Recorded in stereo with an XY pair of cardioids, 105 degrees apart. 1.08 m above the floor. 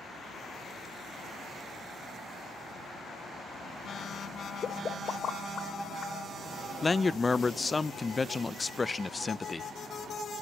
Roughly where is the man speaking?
Ahead left.